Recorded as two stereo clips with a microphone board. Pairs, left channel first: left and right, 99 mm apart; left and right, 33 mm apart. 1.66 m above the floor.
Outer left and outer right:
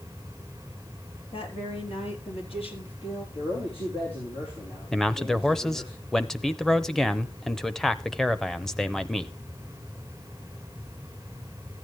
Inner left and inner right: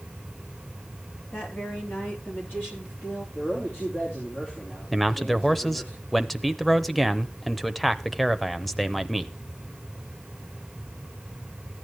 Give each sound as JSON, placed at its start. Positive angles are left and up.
{"t": 1.3, "sound": "a woman speaking", "side_deg": 80, "distance_m": 4.0}
{"t": 3.4, "sound": "a man speaking", "side_deg": 85, "distance_m": 5.0}
{"t": 4.9, "sound": "a man speaking", "side_deg": 5, "distance_m": 0.8}